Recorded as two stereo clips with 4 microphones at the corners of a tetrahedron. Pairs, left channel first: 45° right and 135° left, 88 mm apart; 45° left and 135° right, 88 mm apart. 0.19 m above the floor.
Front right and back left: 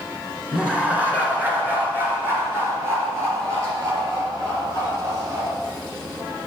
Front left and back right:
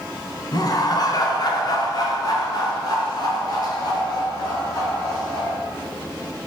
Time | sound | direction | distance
0.5 | laughter | 60° left | 2 m